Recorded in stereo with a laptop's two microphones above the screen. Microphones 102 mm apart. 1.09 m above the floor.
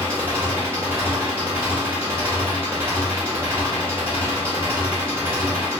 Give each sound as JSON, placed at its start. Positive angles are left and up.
{"t": 0.0, "sound": "an engine running", "side_deg": -25, "distance_m": 1.3}